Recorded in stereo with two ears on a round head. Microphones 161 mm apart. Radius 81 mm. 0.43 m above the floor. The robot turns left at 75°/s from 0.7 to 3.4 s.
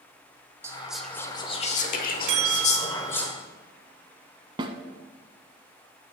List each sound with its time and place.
0.6 s whispering: 160° right, 1.2 m; by 3.3 s 5° left, 1.2 m
2.3 s a bell: 100° right, 1.3 m; by 3.3 s 175° right, 1.3 m
4.6 s a snare drum: 25° right (ahead or behind), 0.6 m